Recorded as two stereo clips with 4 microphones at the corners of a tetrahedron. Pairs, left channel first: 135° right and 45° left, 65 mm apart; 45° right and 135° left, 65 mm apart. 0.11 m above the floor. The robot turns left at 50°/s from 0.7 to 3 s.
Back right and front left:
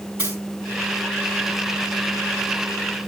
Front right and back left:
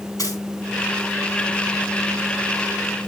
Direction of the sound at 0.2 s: 10° right.